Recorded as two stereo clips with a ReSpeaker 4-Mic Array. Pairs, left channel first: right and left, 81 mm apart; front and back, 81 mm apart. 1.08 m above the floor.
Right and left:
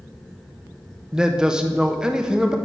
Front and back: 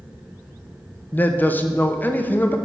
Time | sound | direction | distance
1.1 | a man speaking | 20° left | 0.6 m